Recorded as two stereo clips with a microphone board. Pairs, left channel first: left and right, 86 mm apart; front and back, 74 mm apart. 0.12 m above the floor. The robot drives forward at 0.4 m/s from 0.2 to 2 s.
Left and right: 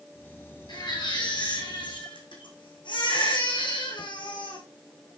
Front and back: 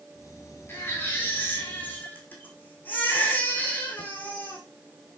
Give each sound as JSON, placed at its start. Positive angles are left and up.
{"t": 0.7, "sound": "a baby crying", "azimuth_deg": 60, "distance_m": 4.5}